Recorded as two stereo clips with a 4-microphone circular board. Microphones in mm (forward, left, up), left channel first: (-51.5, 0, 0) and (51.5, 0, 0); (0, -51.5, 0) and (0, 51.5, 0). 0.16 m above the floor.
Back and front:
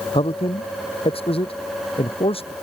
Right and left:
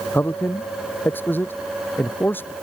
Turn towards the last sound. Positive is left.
turn(degrees=-160)